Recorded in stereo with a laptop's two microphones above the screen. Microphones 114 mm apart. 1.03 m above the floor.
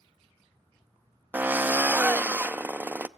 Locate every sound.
1.3 s a drill: 15° right (ahead or behind), 0.5 m